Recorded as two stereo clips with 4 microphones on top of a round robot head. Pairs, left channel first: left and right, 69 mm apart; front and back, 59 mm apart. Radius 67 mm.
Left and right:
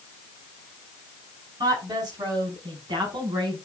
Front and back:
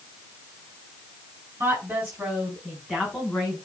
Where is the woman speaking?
120° right, 4 m; by 3.5 s 80° right, 4.5 m.